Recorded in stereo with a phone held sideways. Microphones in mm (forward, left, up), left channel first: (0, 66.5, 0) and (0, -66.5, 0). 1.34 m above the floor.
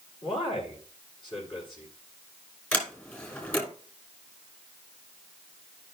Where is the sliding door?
15° left (ahead or behind), 2 m.